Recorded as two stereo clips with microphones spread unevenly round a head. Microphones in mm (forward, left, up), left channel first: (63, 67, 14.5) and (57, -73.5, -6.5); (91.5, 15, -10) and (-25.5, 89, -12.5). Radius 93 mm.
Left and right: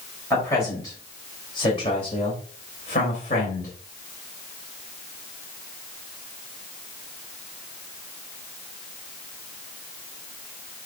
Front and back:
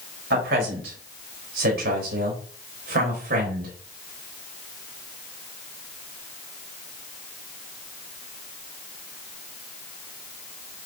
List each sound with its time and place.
0.3 s a man speaking: 165° left, 4 m; by 3.7 s 140° left, 3.5 m